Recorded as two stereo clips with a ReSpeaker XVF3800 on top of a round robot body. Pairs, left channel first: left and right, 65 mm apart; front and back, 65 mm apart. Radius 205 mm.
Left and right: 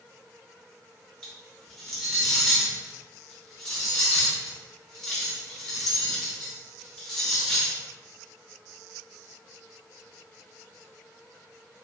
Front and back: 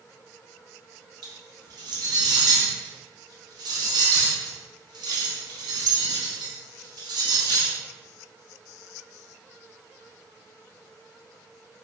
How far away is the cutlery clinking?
About 0.5 m.